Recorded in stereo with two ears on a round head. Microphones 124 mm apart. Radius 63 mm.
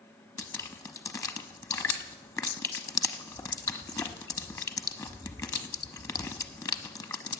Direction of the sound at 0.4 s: 25° left (ahead or behind).